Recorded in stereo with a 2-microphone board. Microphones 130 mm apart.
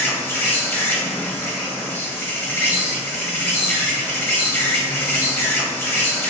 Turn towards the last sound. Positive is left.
turn(degrees=15)  # may be behind; listen again after turning